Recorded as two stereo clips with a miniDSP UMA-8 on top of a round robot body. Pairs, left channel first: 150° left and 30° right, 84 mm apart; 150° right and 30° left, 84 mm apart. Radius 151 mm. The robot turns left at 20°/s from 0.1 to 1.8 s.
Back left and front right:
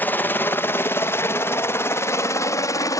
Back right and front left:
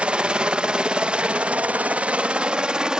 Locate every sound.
0.0 s a helicopter: 100° left; by 3.0 s 110° left